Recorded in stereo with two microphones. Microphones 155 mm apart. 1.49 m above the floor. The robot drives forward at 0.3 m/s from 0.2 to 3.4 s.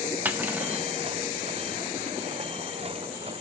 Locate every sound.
0.2 s cutlery clinking: 10° right (ahead or behind), 0.8 m